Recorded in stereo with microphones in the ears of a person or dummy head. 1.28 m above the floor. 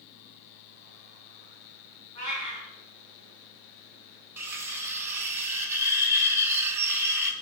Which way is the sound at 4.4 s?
15° right (ahead or behind).